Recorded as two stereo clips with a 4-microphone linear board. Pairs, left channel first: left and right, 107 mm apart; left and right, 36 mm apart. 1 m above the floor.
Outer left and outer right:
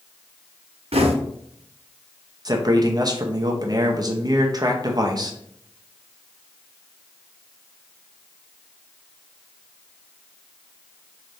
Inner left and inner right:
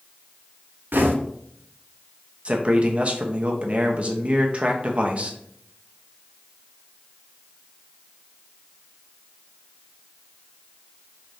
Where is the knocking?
85° right, 0.7 m.